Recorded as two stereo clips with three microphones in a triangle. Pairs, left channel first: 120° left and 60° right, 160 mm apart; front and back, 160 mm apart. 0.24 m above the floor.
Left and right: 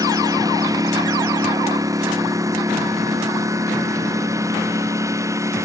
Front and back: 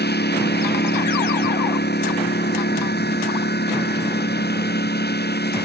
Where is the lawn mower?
10° left.